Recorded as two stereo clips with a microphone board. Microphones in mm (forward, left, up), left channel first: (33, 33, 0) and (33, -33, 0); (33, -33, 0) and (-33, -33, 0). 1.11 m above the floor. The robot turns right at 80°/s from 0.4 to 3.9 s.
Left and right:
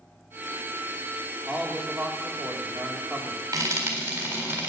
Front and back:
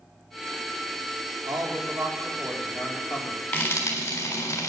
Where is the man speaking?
170° right, 3.5 m; by 3.4 s 15° right, 3.5 m.